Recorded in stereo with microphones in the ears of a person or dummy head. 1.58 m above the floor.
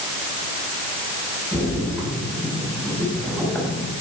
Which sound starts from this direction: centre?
A splash, at 1.5 s.